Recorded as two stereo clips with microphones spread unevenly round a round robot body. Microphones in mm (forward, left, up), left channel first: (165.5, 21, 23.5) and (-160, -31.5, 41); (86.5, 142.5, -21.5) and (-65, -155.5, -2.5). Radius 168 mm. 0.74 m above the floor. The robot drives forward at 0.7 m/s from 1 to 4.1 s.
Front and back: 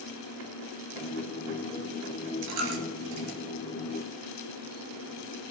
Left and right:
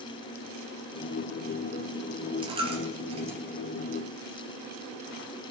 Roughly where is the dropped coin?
Behind.